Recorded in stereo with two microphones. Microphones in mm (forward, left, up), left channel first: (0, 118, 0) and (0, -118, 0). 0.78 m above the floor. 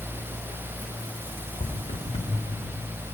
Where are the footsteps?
30° left (ahead or behind), 3 m; by 2.7 s 20° left (ahead or behind), 2.5 m.